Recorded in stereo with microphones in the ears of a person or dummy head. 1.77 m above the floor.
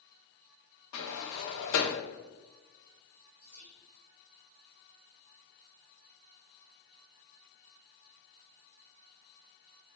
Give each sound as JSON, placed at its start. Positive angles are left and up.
{"t": 0.9, "sound": "a sliding door", "side_deg": 70, "distance_m": 0.6}
{"t": 3.4, "sound": "whispering", "side_deg": 15, "distance_m": 1.1}